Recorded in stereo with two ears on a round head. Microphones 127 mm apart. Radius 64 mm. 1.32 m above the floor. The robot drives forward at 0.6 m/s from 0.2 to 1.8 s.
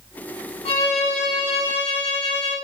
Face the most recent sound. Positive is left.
turn(degrees=40)  # may be behind; listen again after turning